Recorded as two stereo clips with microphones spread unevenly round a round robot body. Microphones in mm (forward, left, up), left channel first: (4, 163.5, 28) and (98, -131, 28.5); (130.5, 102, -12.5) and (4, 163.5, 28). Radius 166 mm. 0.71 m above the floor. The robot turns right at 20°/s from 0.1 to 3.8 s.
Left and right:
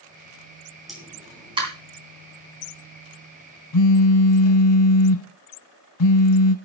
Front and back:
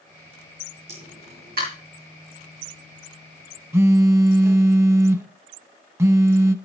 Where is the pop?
160° right, 3 m; by 1.7 s 145° right, 3 m.